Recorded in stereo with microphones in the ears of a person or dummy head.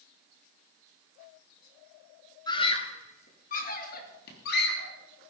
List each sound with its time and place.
2.5 s a scream: 20° left (ahead or behind), 1.6 m; by 4.9 s 60° left (ahead or behind), 4 m